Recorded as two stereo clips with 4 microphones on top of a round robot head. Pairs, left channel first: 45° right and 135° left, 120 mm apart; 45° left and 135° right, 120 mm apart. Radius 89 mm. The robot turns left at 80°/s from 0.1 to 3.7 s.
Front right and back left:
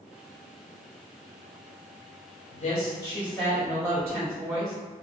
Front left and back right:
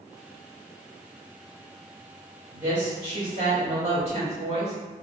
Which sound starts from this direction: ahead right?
A woman speaking, at 2.5 s.